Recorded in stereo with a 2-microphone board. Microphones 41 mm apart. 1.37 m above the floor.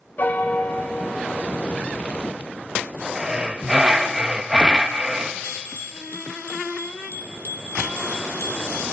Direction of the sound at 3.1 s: 20° right (ahead or behind).